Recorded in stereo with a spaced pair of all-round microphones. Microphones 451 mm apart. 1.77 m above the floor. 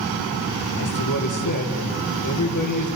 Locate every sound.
0.8 s a man speaking: 45° left (ahead or behind), 2 m